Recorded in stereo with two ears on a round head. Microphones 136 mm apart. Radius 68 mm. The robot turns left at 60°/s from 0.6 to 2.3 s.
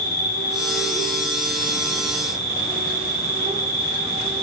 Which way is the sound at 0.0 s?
55° left.